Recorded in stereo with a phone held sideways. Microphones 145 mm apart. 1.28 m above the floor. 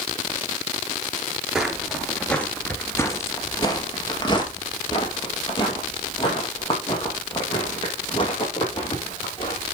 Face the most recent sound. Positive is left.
turn(degrees=35)  # may be behind; listen again after turning